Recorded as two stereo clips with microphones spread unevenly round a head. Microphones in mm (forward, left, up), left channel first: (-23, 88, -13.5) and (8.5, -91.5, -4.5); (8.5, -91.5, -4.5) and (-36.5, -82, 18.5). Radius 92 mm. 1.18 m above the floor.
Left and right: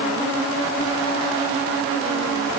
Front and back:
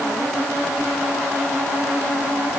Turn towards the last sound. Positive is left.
No sound to turn to.